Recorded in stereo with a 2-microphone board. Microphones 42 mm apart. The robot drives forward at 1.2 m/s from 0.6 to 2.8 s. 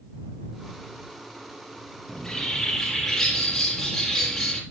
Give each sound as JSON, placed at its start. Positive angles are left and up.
{"t": 2.1, "sound": "a bird", "side_deg": 15, "distance_m": 3.0}